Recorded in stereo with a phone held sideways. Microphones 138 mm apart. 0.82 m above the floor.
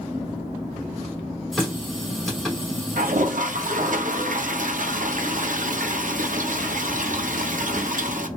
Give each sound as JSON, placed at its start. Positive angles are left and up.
{"t": 1.5, "sound": "a running tap", "side_deg": 0, "distance_m": 2.0}
{"t": 3.0, "sound": "a toilet flushing", "side_deg": -75, "distance_m": 0.6}